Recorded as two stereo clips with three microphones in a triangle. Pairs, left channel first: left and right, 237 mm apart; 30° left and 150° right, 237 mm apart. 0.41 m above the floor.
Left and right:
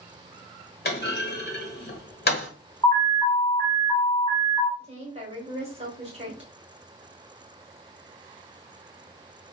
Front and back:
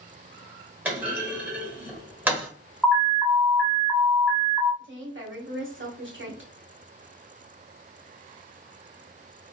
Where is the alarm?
115° left, 1.4 m.